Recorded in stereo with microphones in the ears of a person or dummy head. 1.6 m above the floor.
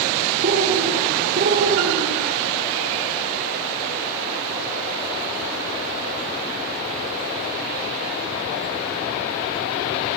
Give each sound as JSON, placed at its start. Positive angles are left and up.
{"t": 0.4, "sound": "a bird", "side_deg": -40, "distance_m": 5.0}